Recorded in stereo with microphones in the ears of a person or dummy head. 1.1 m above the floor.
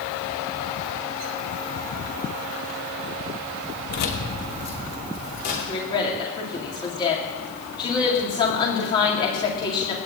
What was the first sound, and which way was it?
Keys jangling, 55° left (ahead or behind).